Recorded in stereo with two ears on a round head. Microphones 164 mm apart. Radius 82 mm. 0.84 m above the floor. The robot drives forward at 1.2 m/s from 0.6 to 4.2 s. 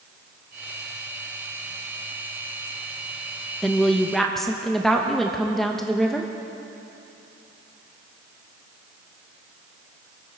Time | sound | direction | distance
3.6 | a woman speaking | centre (ahead or behind) | 0.8 m